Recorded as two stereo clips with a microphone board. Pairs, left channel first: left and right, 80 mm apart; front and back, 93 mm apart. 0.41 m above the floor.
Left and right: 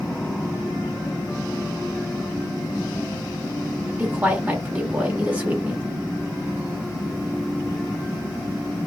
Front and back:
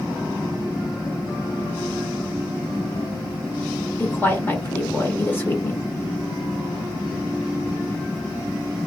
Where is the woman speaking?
35° right, 1.1 m.